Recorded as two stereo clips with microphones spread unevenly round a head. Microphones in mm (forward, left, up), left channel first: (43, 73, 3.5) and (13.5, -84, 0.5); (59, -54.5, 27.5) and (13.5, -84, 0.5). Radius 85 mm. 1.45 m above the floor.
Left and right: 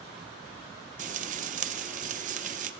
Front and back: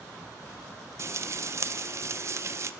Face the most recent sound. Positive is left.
turn(degrees=-95)